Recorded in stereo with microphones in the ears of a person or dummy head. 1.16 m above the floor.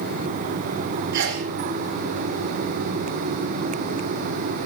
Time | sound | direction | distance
1.1 | a sneeze | 70° right (ahead or behind) | 3.5 m